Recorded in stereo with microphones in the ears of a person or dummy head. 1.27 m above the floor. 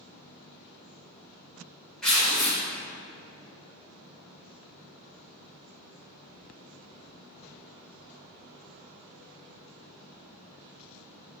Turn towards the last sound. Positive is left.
turn(degrees=5)  # may be behind; listen again after turning